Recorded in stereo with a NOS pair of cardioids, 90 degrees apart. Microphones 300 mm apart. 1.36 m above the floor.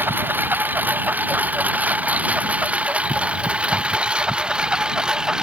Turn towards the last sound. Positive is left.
turn(degrees=0)